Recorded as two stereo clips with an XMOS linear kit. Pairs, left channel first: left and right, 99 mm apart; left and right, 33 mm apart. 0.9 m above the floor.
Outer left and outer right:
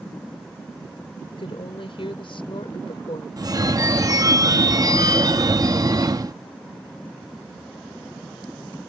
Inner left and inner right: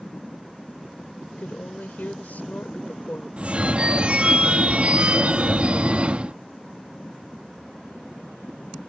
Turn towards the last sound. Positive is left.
turn(degrees=-40)  # may be behind; listen again after turning